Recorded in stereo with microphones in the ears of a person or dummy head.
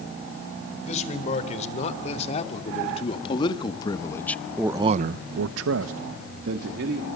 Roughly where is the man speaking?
Left.